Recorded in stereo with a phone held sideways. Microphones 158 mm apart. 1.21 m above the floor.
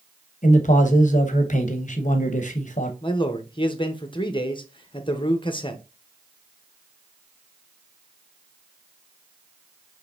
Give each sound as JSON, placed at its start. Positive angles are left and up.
{"t": 0.4, "sound": "a man speaking", "side_deg": 50, "distance_m": 0.9}
{"t": 3.0, "sound": "a man speaking", "side_deg": 30, "distance_m": 0.8}